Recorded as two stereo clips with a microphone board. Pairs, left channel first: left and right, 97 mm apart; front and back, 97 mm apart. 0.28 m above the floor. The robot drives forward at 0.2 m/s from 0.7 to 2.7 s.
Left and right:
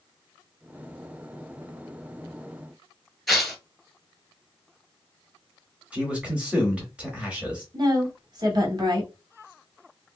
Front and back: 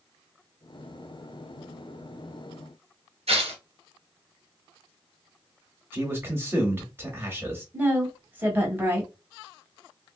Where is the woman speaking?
115° right, 1.5 m.